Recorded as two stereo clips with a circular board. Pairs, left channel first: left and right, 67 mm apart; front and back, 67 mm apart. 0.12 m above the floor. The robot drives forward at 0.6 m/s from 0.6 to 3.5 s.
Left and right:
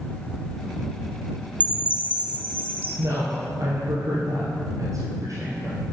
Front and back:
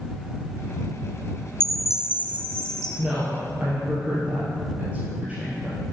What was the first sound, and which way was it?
A chime, 70° left.